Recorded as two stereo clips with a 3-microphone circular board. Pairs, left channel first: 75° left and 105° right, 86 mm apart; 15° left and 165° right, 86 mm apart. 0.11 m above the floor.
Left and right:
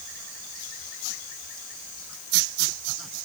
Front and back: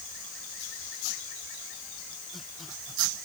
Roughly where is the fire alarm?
I don't hear a fire alarm.